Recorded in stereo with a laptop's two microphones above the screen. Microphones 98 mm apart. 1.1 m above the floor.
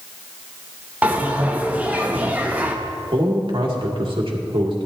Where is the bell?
15° right (ahead or behind), 0.6 m.